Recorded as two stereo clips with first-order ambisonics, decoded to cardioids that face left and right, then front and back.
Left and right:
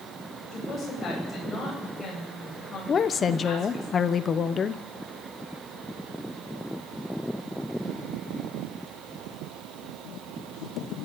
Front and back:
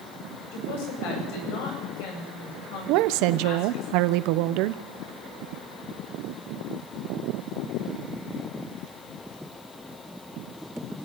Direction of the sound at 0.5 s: 15° left.